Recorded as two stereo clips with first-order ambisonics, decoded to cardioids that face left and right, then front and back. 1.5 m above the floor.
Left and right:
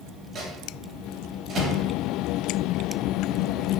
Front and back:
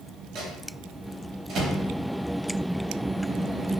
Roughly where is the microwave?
Behind right.